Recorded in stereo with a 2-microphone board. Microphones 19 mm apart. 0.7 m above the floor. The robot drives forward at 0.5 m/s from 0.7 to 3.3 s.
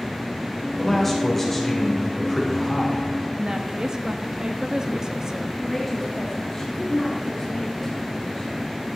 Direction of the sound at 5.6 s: 15° left (ahead or behind).